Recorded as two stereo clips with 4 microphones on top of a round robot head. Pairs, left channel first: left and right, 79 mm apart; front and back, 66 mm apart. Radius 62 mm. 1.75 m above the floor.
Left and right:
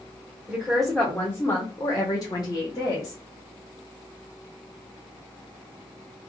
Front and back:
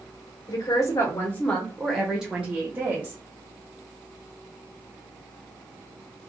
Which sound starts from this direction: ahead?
A woman speaking, at 0.5 s.